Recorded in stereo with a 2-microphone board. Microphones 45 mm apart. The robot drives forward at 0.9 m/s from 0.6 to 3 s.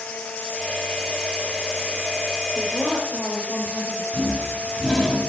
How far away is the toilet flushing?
About 1.2 m.